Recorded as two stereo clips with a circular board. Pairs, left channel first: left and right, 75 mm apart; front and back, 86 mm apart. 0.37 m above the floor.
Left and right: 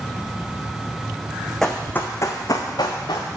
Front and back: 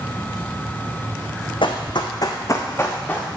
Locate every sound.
1.6 s running footsteps: 5° left, 1.4 m; by 3.3 s 75° left, 2.5 m